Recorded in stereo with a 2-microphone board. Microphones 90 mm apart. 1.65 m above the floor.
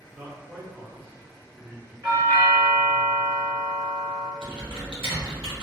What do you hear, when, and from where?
0.1 s a man speaking: 25° right (ahead or behind), 0.7 m
2.0 s a doorbell: 50° right (ahead or behind), 1.4 m
4.4 s typing on a keyboard: 80° right, 0.8 m